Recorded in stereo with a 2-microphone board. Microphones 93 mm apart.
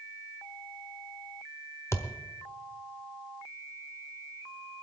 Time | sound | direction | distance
1.9 | a thud | 30° left (ahead or behind) | 1.1 m